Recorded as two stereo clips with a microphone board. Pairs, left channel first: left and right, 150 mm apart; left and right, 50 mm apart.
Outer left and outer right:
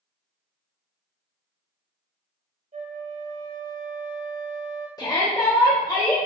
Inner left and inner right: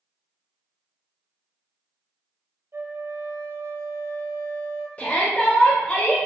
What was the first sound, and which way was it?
A flute, 65° right (ahead or behind).